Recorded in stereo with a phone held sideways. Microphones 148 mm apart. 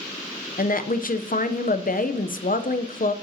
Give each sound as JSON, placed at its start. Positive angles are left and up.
{"t": 0.6, "sound": "a woman speaking", "side_deg": 70, "distance_m": 0.7}